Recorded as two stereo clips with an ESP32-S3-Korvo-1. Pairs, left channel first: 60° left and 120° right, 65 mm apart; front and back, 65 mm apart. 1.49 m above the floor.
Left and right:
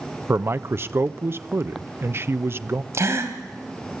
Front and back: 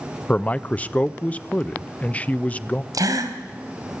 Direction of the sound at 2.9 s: 160° right.